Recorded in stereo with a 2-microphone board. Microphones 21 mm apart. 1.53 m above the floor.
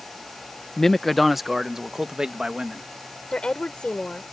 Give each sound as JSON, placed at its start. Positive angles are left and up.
{"t": 0.8, "sound": "a man speaking", "side_deg": 30}
{"t": 3.3, "sound": "a woman speaking", "side_deg": 45}